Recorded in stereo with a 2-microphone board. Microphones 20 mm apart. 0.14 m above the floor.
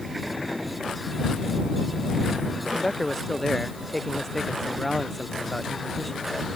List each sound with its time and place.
2.6 s a man speaking: 10° left (ahead or behind)